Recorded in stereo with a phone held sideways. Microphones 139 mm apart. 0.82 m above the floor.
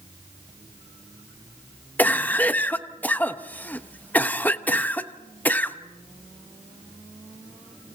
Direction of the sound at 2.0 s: 15° left (ahead or behind).